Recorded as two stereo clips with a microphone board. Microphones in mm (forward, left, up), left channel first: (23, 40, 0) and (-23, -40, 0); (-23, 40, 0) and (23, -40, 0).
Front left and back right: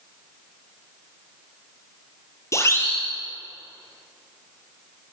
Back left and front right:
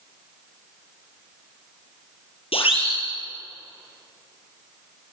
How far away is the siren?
About 7 m.